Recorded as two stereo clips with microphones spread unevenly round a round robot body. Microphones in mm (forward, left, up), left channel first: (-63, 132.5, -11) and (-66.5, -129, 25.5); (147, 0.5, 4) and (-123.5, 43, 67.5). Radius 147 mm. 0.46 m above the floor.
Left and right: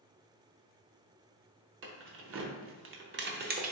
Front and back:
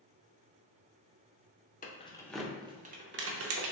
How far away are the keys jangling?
About 0.7 m.